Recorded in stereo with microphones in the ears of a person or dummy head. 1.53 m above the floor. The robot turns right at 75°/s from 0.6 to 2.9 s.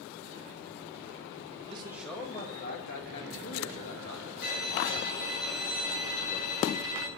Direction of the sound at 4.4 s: 55° left (ahead or behind).